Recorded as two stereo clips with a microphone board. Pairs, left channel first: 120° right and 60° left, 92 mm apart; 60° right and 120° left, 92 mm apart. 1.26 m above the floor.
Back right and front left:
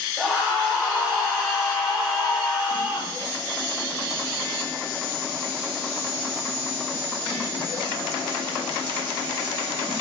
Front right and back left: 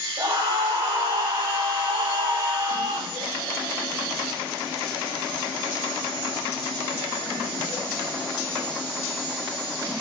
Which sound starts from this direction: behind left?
A scream, at 0.2 s.